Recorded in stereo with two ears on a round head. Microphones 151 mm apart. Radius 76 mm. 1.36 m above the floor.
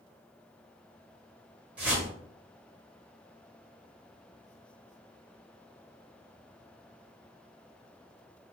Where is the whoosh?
5° right (ahead or behind), 1.4 m.